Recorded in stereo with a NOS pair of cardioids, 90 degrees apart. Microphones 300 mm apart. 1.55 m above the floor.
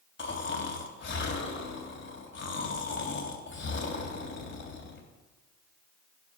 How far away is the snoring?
About 3 m.